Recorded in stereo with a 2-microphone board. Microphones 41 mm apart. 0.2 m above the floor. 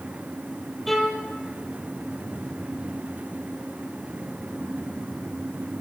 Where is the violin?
Centre (ahead or behind), 5 m.